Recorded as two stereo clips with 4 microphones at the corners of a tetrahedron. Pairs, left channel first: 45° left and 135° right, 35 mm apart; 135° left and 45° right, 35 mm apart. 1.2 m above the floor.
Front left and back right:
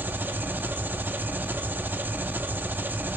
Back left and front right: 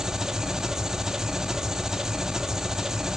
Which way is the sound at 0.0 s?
120° right.